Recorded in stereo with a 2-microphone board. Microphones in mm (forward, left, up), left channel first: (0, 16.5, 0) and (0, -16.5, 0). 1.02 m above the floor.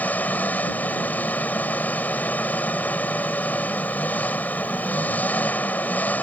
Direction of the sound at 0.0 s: 65° left (ahead or behind).